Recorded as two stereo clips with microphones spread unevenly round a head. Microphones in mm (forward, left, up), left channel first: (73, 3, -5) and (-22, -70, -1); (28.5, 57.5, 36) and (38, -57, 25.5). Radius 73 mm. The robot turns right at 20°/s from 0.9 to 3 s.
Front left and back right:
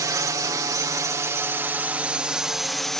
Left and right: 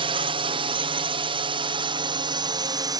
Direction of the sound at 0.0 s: 90° right.